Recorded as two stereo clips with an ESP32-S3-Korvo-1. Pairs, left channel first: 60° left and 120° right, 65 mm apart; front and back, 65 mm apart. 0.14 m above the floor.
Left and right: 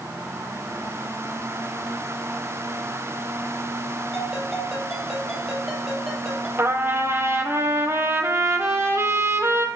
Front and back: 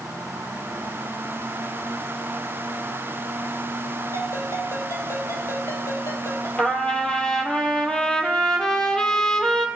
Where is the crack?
No crack in this recording.